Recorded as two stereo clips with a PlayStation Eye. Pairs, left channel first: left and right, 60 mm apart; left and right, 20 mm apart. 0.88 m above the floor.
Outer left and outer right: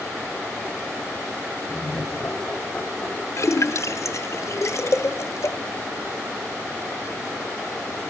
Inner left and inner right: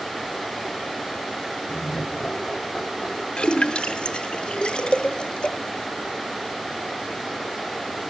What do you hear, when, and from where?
1.7 s laughter: 30° left (ahead or behind), 5 m
3.4 s a splash: 55° left (ahead or behind), 0.9 m